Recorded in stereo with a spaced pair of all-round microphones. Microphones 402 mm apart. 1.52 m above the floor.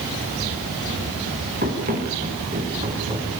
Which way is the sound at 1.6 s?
25° right (ahead or behind).